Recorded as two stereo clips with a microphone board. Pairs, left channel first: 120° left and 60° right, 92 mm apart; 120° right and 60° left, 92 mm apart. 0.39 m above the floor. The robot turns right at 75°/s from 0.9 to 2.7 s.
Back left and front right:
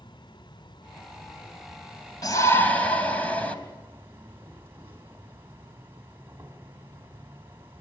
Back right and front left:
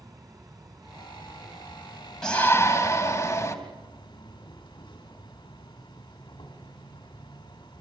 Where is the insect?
100° left, 2.5 m; by 7.8 s 125° right, 2.5 m.